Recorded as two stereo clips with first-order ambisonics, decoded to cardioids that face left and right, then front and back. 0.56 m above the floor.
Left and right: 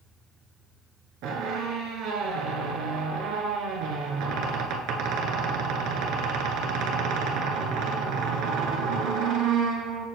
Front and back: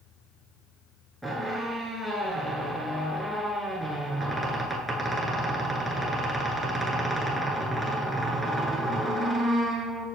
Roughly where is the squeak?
Right.